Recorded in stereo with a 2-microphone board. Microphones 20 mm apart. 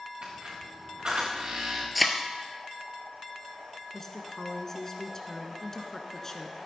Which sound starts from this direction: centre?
A thud, at 1.9 s.